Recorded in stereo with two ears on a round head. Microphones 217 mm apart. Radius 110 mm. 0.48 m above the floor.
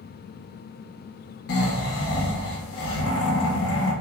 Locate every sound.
1.5 s snoring: 60° left (ahead or behind), 0.6 m